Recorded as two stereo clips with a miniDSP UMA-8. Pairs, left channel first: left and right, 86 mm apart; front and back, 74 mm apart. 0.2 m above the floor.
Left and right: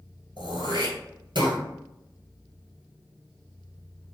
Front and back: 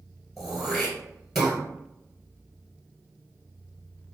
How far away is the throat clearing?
About 1.3 m.